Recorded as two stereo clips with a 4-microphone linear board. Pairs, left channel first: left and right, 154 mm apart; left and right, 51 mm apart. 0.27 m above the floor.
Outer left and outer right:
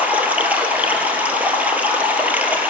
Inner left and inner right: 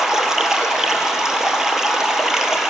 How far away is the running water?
About 1.4 m.